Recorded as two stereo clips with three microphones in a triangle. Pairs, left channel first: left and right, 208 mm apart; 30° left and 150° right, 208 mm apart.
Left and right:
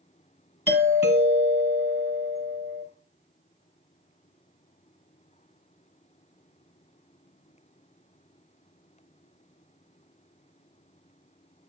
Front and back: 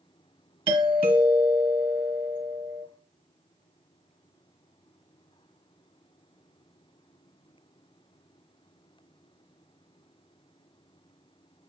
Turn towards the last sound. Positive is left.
turn(degrees=150)